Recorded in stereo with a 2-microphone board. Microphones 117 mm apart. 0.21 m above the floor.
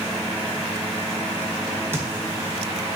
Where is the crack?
20° right (ahead or behind), 1.1 m.